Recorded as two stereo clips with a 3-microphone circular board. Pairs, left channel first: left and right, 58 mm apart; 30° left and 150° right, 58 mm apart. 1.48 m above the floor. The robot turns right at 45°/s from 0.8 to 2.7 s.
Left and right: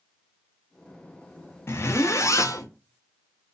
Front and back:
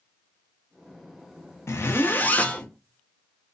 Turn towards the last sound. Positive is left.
turn(degrees=105)